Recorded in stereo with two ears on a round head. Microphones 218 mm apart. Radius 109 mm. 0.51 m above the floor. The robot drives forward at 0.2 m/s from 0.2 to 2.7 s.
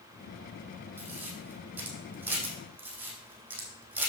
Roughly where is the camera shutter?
Centre.